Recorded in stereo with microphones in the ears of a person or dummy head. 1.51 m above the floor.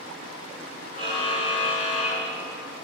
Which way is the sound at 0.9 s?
45° left (ahead or behind).